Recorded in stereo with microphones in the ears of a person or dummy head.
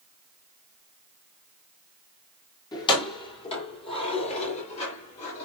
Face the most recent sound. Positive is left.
turn(degrees=40)  # may be behind; listen again after turning